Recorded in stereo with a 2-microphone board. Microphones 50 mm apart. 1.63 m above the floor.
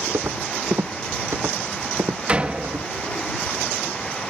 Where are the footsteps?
70° right (ahead or behind); by 2.9 s 65° right (ahead or behind).